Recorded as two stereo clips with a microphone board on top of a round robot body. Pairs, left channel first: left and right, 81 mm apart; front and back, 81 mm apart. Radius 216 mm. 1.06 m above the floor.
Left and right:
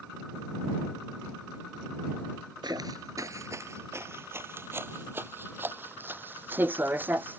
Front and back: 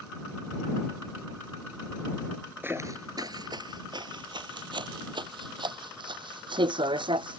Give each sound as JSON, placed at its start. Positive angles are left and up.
{"t": 2.6, "sound": "footsteps", "azimuth_deg": -115}